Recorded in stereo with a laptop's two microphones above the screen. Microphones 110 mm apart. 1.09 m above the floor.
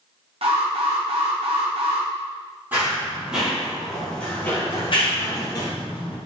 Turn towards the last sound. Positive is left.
turn(degrees=50)  # may be behind; listen again after turning